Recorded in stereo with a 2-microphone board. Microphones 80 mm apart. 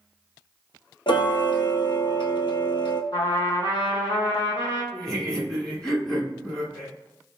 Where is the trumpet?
75° left (ahead or behind), 1.5 m.